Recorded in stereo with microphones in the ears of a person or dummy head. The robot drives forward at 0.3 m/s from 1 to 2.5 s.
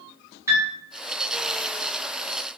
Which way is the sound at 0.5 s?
10° right (ahead or behind).